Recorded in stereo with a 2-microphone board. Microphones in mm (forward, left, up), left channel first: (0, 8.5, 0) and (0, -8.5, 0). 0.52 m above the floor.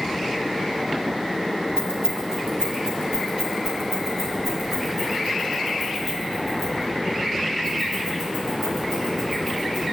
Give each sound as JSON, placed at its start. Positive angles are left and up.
{"t": 1.8, "sound": "keys jangling", "side_deg": -45, "distance_m": 2.5}